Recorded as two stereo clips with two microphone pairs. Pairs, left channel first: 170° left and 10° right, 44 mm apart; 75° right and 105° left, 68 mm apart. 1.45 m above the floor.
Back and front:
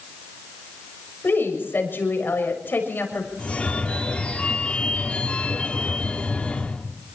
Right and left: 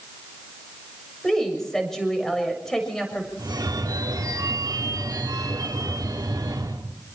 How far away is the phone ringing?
About 3 m.